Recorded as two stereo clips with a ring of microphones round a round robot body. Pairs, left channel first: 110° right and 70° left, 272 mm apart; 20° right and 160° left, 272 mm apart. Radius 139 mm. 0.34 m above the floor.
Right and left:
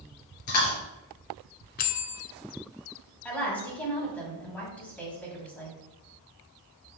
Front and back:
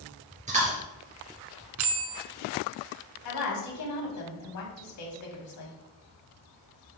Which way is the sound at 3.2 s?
30° right.